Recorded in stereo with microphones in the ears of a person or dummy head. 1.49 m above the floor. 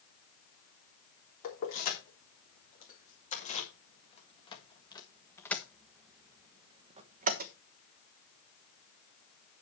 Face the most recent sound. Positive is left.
turn(degrees=-55)  # may be behind; listen again after turning